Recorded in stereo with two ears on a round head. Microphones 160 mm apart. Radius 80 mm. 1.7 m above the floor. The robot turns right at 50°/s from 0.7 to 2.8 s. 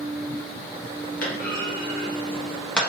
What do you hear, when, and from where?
1.2 s a clunk: 50° left (ahead or behind), 0.9 m; by 2.8 s 5° left (ahead or behind), 0.9 m